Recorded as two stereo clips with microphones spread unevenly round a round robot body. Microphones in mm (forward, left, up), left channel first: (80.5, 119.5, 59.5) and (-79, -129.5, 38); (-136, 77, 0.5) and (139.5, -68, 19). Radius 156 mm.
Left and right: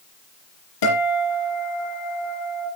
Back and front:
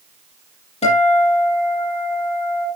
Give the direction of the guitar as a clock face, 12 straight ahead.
9 o'clock.